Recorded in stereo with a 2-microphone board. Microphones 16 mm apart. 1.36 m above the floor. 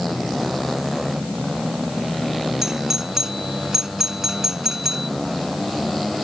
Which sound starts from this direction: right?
A doorbell, at 2.6 s.